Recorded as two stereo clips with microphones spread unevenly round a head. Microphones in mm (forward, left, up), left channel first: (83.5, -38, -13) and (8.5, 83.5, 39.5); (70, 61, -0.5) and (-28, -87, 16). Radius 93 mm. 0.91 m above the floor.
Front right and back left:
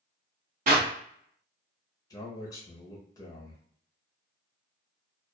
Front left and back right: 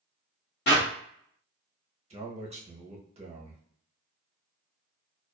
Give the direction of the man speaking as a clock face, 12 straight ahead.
3 o'clock.